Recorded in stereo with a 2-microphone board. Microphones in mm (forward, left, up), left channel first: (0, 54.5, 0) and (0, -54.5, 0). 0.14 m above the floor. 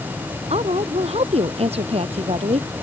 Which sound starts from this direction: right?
A woman speaking, at 0.5 s.